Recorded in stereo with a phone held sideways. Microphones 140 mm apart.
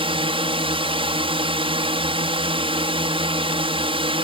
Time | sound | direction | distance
0.0 | a drone | 45° right (ahead or behind) | ?